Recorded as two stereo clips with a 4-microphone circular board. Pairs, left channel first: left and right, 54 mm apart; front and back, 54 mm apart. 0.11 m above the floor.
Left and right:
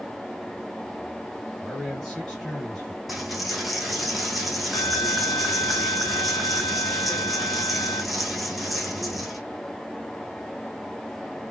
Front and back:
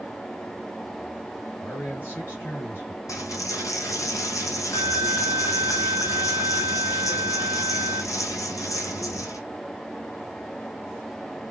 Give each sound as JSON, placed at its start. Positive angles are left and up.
{"t": 1.6, "sound": "a man speaking", "azimuth_deg": 15, "distance_m": 2.0}
{"t": 3.1, "sound": "a dropped coin", "azimuth_deg": 0, "distance_m": 0.9}